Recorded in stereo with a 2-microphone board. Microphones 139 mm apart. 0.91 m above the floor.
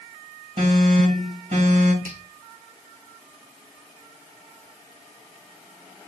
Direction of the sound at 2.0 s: 75° right (ahead or behind).